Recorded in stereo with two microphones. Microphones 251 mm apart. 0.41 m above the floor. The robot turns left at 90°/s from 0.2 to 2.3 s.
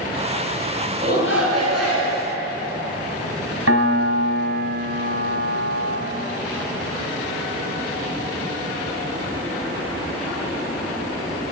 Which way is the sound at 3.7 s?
65° right (ahead or behind).